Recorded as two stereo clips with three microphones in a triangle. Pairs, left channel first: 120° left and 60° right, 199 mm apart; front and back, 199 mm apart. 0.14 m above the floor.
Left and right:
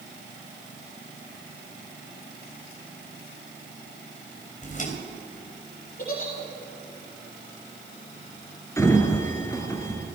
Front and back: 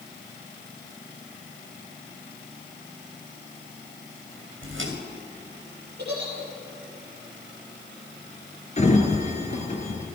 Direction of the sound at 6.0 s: 155° left.